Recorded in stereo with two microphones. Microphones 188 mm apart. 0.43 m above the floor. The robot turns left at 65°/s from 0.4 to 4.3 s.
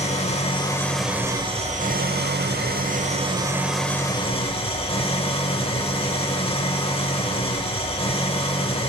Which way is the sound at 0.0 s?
40° left.